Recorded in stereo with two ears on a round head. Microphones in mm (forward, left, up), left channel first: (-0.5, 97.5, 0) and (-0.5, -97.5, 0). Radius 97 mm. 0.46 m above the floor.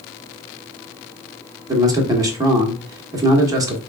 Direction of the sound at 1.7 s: 15° right (ahead or behind).